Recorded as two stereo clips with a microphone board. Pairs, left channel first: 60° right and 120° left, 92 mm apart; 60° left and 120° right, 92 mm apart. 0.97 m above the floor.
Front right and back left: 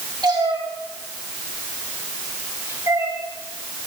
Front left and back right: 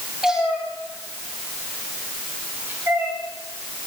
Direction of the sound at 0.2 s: 155° left.